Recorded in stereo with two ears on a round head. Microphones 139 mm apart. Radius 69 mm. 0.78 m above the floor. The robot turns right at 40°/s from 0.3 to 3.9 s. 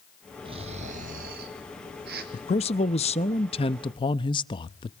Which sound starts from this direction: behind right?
Snoring, at 0.5 s.